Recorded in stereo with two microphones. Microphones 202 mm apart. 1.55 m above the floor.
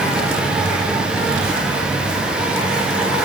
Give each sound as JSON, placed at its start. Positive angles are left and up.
{"t": 0.0, "sound": "an insect", "side_deg": -5, "distance_m": 1.1}